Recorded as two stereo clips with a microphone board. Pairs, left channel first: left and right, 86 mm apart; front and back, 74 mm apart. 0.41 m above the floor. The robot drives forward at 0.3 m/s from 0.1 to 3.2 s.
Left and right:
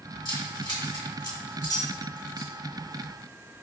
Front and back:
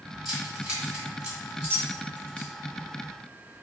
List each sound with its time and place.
0.2 s keys jangling: 100° left, 1.6 m; by 2.5 s 120° left, 1.8 m